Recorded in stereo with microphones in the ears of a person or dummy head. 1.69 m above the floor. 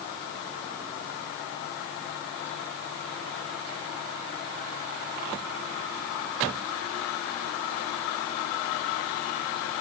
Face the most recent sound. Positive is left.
No sound to turn to.